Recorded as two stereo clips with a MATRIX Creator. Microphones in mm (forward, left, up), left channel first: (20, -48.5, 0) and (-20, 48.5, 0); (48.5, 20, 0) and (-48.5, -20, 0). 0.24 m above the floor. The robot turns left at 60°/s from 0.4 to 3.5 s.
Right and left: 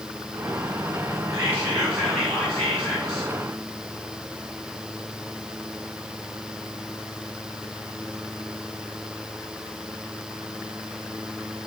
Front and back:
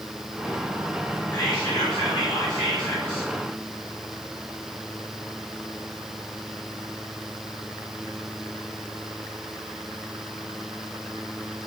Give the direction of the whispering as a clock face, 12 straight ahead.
10 o'clock.